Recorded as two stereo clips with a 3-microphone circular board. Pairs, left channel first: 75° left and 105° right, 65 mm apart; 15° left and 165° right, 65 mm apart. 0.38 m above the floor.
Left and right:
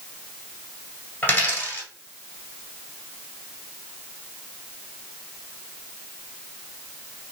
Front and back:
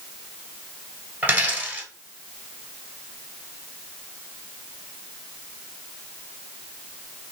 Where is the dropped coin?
135° left, 1.4 m.